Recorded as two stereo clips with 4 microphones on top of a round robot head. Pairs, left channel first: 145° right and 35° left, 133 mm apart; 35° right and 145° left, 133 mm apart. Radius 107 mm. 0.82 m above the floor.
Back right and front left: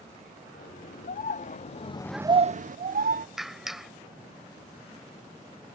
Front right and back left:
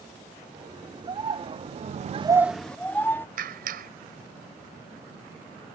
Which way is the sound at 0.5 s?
160° right.